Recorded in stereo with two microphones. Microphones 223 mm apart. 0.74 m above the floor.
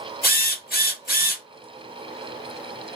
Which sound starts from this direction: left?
A drill, at 0.2 s.